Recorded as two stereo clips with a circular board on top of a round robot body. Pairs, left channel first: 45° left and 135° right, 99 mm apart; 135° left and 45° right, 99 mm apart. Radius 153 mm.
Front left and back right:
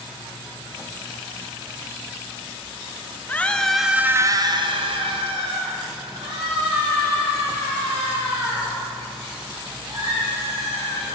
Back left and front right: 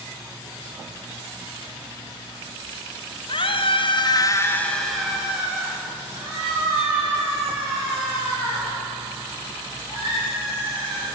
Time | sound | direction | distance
3.3 | a scream | 115° left | 1.4 m